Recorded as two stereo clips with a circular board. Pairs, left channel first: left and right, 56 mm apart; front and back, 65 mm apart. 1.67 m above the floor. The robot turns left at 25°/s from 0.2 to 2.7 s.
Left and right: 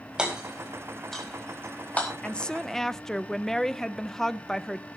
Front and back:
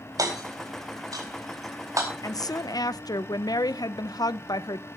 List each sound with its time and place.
0.2 s hammering: 165° right, 4.5 m; by 2.1 s 150° left, 4.5 m
2.2 s a woman speaking: 20° left, 0.6 m; by 4.9 s 5° left, 0.6 m